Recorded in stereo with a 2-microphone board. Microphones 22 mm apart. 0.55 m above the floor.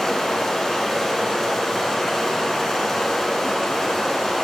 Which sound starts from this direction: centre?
Running water, at 0.0 s.